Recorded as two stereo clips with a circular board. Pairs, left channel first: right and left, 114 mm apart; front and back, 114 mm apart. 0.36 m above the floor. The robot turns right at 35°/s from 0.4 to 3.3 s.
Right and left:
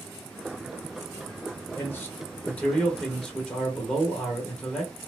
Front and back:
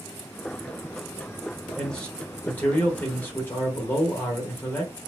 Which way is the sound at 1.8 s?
70° right.